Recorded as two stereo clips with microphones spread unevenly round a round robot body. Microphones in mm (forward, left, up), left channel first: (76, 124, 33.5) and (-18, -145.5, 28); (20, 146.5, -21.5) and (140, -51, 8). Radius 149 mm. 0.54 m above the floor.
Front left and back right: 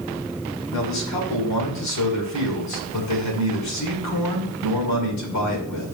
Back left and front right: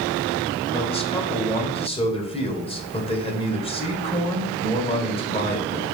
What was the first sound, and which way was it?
A man speaking, 60° left.